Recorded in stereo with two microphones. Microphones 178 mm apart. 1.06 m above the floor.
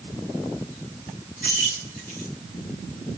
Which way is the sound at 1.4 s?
50° left (ahead or behind).